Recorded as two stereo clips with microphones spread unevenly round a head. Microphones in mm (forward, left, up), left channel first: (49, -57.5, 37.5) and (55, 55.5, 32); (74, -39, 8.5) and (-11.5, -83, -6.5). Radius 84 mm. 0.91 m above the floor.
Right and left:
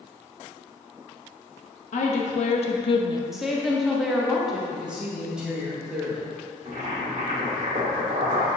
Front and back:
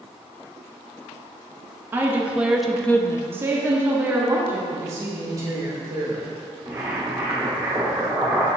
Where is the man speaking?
165° left, 1.4 m.